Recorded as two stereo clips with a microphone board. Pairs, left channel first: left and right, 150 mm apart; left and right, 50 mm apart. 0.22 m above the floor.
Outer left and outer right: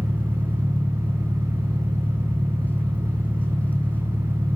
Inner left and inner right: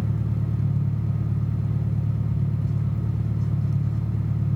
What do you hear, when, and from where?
0.0 s an engine running: 10° left (ahead or behind), 4 m